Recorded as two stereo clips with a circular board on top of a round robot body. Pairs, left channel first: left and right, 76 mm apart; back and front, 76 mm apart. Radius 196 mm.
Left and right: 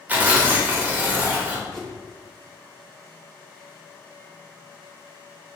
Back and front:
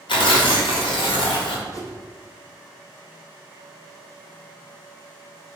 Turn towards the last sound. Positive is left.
turn(degrees=175)